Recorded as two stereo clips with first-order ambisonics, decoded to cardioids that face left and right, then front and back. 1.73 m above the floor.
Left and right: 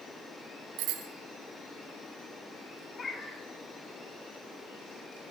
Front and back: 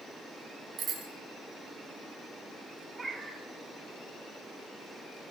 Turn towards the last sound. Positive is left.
turn(degrees=125)